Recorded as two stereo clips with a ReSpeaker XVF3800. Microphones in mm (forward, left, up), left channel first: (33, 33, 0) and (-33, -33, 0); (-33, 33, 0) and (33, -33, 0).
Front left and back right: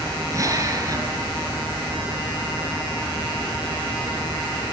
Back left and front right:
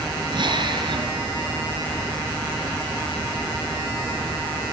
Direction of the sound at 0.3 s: 80° right.